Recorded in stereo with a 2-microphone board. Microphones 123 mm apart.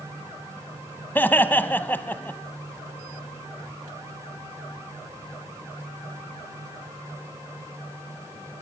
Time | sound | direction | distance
1.1 | laughter | 15° left (ahead or behind) | 1.0 m